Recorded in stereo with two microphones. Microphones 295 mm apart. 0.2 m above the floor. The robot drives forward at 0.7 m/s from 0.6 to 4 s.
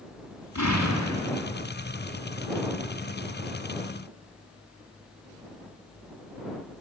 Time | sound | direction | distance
0.6 | an explosion | 70° left (ahead or behind) | 3 m